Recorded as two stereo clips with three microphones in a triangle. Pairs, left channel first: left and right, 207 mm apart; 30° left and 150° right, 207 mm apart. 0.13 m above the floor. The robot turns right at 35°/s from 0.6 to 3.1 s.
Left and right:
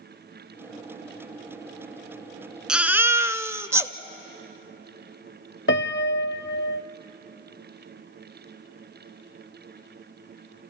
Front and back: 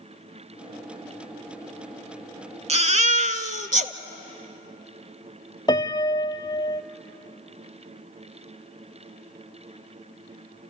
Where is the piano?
95° left, 0.5 m.